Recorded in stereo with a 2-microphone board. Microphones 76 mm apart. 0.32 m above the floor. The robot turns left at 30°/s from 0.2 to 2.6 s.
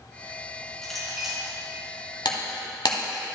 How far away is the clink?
About 2.5 m.